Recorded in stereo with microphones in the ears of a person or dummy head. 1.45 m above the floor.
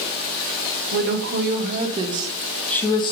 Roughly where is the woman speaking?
Right.